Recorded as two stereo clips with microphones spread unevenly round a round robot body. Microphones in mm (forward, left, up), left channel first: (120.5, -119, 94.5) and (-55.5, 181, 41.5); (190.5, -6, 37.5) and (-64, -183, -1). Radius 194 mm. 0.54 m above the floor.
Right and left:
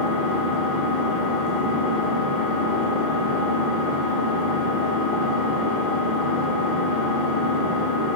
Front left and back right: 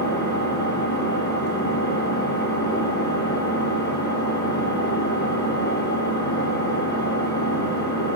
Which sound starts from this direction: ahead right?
An engine running, at 0.0 s.